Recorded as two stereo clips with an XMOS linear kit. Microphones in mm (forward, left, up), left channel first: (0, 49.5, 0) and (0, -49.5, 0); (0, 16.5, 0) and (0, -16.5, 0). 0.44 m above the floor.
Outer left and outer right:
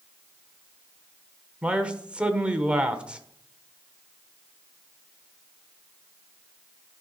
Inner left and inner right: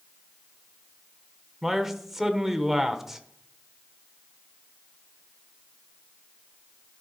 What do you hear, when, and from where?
1.6 s a man speaking: 10° right (ahead or behind), 1.1 m